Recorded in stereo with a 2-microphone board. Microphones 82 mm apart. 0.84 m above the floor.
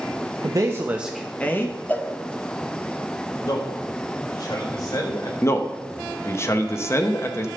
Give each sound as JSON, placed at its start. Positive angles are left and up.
{"t": 0.4, "sound": "a man speaking", "side_deg": -45, "distance_m": 1.1}
{"t": 1.9, "sound": "a cowbell", "side_deg": 25, "distance_m": 0.9}
{"t": 3.4, "sound": "a man speaking", "side_deg": 55, "distance_m": 4.0}
{"t": 5.4, "sound": "a man speaking", "side_deg": 35, "distance_m": 1.1}